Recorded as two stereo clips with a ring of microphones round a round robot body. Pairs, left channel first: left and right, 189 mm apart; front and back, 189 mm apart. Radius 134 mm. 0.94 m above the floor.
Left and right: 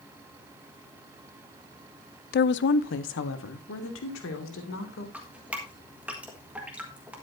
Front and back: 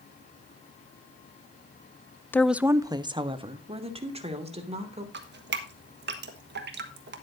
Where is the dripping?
175° right, 1.4 m.